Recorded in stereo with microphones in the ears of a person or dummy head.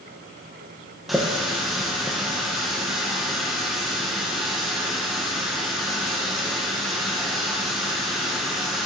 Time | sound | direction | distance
1.1 | a running tap | centre (ahead or behind) | 0.6 m